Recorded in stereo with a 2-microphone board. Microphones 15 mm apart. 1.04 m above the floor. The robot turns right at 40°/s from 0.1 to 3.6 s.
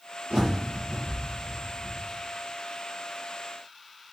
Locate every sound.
0.3 s a bird: 80° right, 6.5 m; by 2.0 s 15° right (ahead or behind), 6.5 m